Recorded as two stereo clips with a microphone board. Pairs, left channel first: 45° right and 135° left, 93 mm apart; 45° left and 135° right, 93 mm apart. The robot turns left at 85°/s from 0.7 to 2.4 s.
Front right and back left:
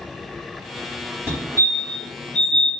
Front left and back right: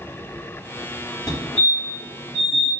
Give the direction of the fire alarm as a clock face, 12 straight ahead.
9 o'clock.